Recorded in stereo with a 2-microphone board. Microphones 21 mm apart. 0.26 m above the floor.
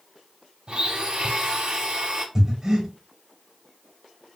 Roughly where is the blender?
Right.